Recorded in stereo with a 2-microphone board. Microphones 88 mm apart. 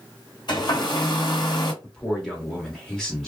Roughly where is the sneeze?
I don't hear a sneeze.